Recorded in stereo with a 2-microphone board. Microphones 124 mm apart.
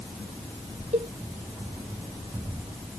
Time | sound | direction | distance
0.9 | a cowbell | 60° right (ahead or behind) | ?